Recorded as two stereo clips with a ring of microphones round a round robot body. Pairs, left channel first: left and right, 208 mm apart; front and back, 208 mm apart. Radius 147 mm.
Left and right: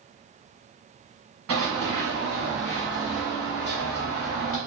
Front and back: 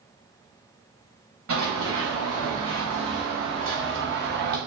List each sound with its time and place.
1.5 s running footsteps: 130° right, 1.2 m; by 4.6 s 135° left, 1.2 m